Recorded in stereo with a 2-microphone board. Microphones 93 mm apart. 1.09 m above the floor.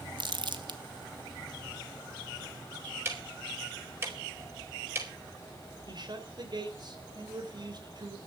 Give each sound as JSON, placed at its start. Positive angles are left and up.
{"t": 0.2, "sound": "crumpling", "side_deg": -60, "distance_m": 1.3}
{"t": 3.0, "sound": "ticking", "side_deg": -25, "distance_m": 4.5}
{"t": 5.9, "sound": "a man speaking", "side_deg": -55, "distance_m": 3.5}